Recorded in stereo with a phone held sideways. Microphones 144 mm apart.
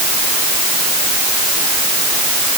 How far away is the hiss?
I don't hear a hiss.